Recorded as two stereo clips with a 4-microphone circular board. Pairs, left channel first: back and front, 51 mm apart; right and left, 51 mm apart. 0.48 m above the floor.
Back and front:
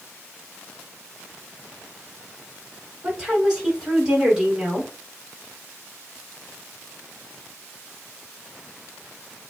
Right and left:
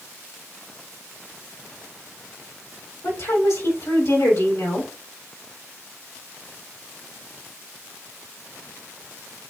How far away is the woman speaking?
About 3 m.